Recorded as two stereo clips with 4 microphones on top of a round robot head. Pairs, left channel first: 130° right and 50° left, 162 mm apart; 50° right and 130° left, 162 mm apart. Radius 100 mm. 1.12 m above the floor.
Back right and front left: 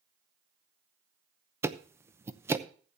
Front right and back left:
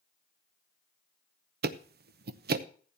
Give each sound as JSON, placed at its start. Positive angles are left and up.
{"t": 1.6, "sound": "ticking", "azimuth_deg": 125, "distance_m": 0.8}